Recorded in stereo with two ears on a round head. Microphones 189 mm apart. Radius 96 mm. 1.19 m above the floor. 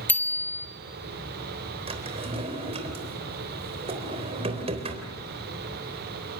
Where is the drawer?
30° right (ahead or behind), 3.5 m.